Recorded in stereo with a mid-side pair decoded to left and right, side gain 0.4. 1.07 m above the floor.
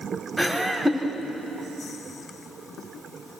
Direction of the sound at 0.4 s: 5° right.